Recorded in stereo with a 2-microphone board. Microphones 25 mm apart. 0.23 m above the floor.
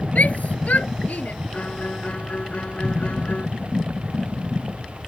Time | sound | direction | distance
0.1 | a shout | 65° left (ahead or behind) | ?
1.5 | a violin | 60° left (ahead or behind) | ?